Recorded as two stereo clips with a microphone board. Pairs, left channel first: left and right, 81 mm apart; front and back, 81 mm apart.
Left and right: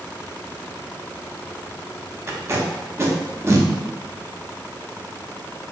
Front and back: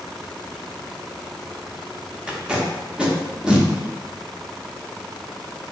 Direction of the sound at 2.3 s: 110° right.